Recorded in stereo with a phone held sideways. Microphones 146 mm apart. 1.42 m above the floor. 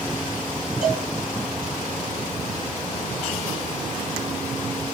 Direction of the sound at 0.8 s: 55° right (ahead or behind).